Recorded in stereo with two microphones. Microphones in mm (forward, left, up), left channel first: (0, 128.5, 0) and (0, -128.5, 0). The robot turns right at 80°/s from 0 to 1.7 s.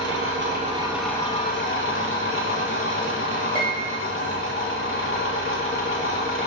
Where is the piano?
20° left (ahead or behind), 1.1 m.